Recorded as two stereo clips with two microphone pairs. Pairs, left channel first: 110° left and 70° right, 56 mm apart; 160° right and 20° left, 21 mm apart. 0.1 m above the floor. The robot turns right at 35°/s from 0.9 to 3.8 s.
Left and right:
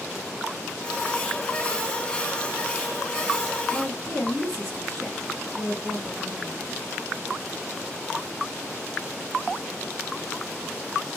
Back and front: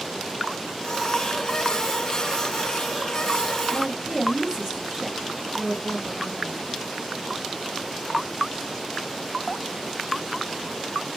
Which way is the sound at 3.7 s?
50° left.